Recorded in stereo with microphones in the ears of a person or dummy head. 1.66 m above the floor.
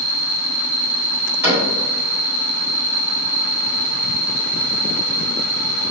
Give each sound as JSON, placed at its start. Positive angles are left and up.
{"t": 0.0, "sound": "an insect", "side_deg": -70, "distance_m": 0.9}
{"t": 1.4, "sound": "a cupboard door", "side_deg": -15, "distance_m": 1.5}